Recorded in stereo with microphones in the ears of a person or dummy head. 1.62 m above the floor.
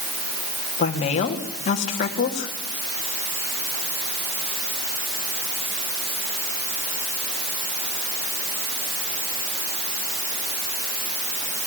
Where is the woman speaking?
35° left (ahead or behind), 2.5 m.